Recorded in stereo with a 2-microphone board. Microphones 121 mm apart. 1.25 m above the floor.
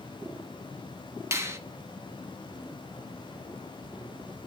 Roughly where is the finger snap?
Right.